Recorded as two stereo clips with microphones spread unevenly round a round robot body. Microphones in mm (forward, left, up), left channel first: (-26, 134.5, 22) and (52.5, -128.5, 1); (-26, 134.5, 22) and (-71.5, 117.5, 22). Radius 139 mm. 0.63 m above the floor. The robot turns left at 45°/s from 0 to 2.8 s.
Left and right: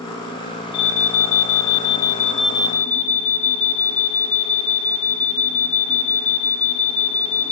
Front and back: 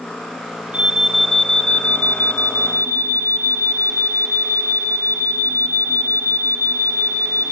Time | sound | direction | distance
0.7 | an alarm | 135° left | 2 m